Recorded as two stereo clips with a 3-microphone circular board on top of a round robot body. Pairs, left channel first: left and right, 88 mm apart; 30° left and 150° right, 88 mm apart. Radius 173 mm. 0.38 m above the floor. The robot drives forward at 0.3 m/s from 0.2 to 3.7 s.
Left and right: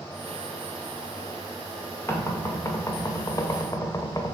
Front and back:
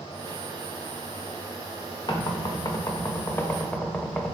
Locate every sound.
2.1 s knocking: 45° left, 0.9 m; by 4.3 s 100° left, 0.8 m